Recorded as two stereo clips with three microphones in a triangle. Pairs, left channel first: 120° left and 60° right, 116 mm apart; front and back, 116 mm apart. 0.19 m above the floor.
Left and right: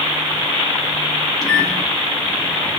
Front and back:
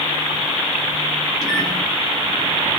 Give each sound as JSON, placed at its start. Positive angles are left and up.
{"t": 1.4, "sound": "a microwave", "azimuth_deg": 30, "distance_m": 1.0}